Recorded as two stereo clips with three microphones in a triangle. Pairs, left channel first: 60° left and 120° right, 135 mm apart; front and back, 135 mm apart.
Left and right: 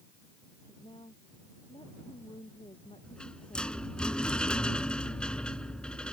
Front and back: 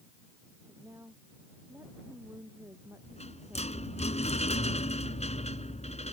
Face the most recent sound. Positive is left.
turn(degrees=-20)